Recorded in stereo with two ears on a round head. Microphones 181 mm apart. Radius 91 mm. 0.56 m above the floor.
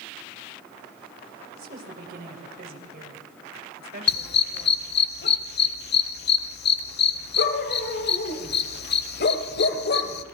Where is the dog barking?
55° left (ahead or behind), 1.1 m.